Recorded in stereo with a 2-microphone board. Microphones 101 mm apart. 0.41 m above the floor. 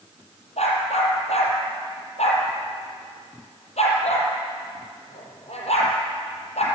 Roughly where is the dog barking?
Left.